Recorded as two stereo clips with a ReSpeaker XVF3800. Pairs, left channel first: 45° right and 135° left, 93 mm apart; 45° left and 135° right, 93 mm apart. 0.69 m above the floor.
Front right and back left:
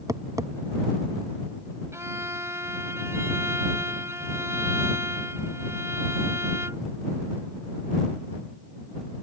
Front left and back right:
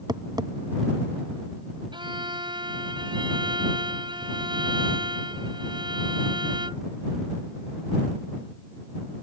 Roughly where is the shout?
I don't hear a shout.